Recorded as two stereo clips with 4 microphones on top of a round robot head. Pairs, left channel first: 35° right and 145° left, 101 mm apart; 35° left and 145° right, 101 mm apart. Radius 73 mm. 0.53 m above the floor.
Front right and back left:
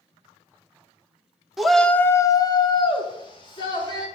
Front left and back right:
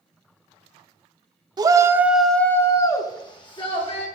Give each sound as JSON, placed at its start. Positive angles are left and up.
{"t": 1.6, "sound": "a shout", "azimuth_deg": -130, "distance_m": 0.9}